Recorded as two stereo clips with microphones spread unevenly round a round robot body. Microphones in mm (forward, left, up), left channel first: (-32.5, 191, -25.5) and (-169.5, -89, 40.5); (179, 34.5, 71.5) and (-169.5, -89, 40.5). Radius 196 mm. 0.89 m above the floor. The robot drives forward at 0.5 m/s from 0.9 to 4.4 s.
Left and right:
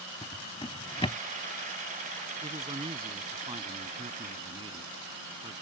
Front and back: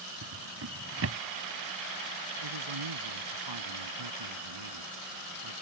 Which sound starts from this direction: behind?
A man speaking, at 2.4 s.